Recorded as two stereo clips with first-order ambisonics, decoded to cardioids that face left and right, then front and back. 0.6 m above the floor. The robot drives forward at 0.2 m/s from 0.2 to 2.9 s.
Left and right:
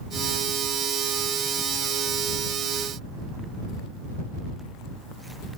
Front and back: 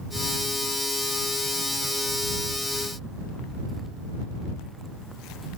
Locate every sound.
Only background noise.